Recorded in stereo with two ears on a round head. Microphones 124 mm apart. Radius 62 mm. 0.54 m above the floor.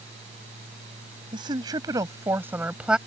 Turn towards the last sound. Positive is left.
turn(degrees=-5)  # may be behind; listen again after turning